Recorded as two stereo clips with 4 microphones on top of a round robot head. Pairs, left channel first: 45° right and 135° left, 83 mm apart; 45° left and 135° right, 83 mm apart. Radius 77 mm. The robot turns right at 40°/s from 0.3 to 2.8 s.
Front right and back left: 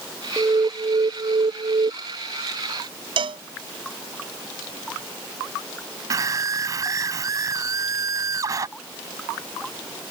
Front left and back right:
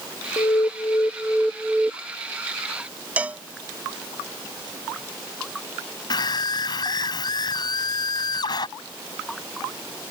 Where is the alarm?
85° left; by 1.9 s 145° left.